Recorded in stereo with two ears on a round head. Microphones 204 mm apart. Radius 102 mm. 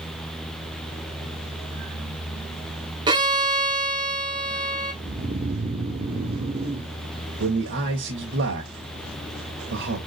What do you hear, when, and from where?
3.1 s a violin: 20° right (ahead or behind), 1.8 m
5.0 s snoring: 25° right (ahead or behind), 0.9 m
7.4 s a man speaking: 55° right (ahead or behind), 2 m